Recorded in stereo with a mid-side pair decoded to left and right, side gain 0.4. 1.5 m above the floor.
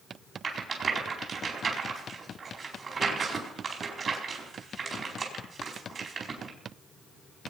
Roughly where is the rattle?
Ahead right.